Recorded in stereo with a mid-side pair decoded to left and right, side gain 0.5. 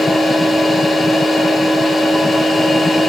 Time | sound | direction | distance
0.0 | a machine running | 20° left | 5 m